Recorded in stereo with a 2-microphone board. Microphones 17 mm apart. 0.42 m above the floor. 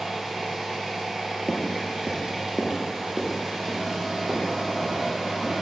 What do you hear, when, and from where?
0.0 s an engine running: 30° right (ahead or behind), 1.2 m
1.5 s footsteps: 30° left (ahead or behind), 0.6 m; by 5.5 s 75° right (ahead or behind), 2 m